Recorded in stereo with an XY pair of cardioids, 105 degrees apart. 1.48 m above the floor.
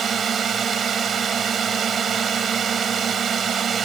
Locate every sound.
0.0 s a drone: 55° right